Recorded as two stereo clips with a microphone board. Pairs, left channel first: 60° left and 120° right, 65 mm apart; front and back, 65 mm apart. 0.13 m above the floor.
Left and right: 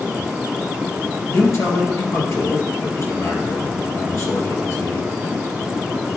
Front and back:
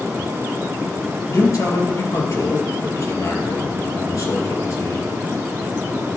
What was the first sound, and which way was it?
A man speaking, 30° left.